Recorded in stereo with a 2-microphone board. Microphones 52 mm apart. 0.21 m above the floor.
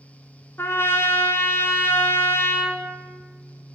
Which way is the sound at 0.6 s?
55° left (ahead or behind).